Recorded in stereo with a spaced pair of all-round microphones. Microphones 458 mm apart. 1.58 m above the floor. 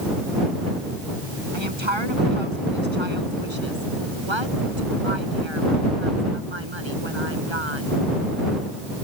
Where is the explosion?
No explosion in this recording.